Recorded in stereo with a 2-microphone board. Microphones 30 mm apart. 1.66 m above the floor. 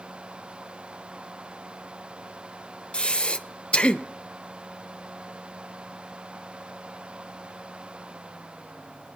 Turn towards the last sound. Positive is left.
turn(degrees=35)  # may be behind; listen again after turning